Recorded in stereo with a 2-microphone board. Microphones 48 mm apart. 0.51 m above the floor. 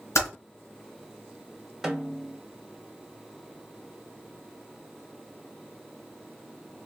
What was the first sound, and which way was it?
Typing on a keyboard, 70° left (ahead or behind).